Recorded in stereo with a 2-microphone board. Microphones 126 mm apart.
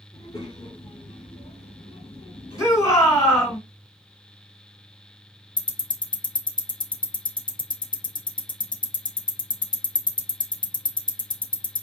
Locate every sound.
0.1 s a child speaking: 30° left (ahead or behind), 1.1 m; by 3.6 s 35° left (ahead or behind), 1.5 m
2.6 s a shout: 25° left (ahead or behind), 2.0 m
5.6 s ticking: 35° left (ahead or behind), 0.8 m